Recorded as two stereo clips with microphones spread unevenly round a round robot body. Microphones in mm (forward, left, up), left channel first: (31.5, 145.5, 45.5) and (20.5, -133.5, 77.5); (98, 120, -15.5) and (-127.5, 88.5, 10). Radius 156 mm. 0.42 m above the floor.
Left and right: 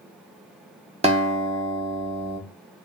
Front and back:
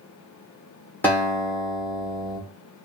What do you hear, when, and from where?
1.0 s a guitar: 40° right, 1.1 m